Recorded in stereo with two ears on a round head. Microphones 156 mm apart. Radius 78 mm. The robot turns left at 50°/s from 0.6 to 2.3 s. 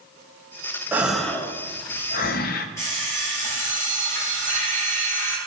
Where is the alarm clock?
15° left (ahead or behind), 3 m.